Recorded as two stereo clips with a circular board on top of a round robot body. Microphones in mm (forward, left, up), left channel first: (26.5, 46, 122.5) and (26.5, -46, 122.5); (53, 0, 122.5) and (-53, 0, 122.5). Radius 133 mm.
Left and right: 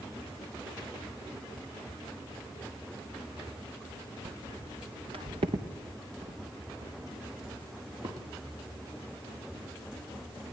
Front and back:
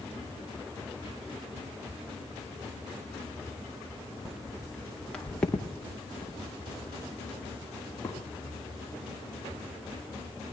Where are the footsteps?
90° right, 1.3 m; by 8.2 s 75° right, 5 m.